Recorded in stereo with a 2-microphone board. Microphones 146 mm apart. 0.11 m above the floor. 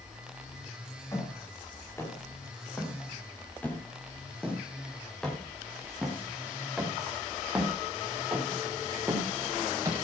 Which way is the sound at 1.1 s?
20° left (ahead or behind).